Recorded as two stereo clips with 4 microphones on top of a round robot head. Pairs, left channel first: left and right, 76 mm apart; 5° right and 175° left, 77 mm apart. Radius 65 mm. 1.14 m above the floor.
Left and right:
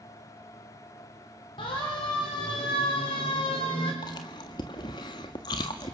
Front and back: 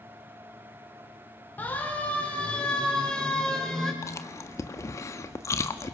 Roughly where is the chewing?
Ahead left.